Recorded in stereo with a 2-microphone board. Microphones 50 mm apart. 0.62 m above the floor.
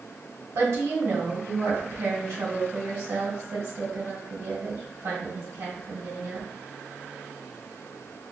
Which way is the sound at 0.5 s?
75° right (ahead or behind).